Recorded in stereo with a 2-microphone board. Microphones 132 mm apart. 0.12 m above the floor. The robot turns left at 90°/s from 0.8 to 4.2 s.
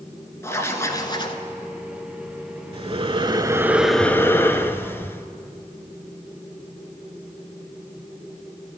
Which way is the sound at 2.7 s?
75° right.